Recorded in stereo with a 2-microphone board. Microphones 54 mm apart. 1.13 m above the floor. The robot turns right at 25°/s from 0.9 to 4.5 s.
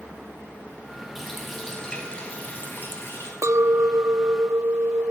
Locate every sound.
1.1 s a running tap: 5° right, 5.5 m; by 3.3 s 50° left, 5.5 m
3.4 s a clink: 65° right (ahead or behind), 0.5 m